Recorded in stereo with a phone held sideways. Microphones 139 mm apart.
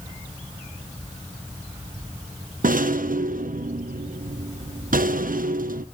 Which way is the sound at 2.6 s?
85° right.